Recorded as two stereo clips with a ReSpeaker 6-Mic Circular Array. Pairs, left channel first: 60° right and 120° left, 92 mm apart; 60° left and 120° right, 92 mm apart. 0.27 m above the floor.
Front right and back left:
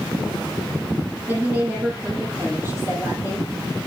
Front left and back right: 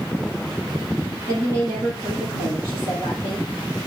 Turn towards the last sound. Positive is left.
turn(degrees=180)